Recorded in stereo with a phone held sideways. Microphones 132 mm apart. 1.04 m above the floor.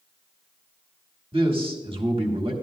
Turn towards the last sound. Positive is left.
turn(degrees=-45)  # may be behind; listen again after turning